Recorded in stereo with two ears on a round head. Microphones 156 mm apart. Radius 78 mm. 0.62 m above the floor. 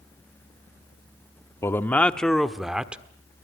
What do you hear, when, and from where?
1.6 s a man speaking: 15° left (ahead or behind), 1.0 m; by 3.0 s 5° right (ahead or behind), 1.5 m